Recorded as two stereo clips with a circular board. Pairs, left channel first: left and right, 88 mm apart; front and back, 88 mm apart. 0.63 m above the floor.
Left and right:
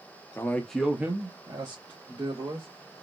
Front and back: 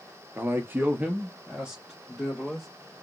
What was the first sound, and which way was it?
A man speaking, 130° left.